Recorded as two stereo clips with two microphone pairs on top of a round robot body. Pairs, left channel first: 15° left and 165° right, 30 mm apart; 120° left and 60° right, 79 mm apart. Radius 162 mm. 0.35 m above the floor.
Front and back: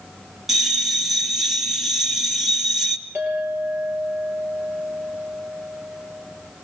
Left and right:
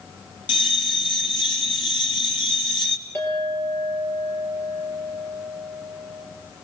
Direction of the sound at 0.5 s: 105° left.